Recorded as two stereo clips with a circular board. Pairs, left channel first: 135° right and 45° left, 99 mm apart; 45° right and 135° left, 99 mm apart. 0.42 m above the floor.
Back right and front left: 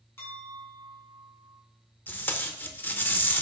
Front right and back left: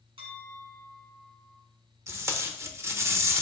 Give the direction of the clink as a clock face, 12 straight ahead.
7 o'clock.